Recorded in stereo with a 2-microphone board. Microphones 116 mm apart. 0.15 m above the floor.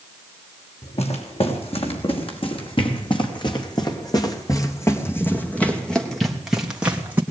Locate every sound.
0.8 s footsteps: 65° left (ahead or behind), 6.5 m; by 7.2 s 15° right (ahead or behind), 3.5 m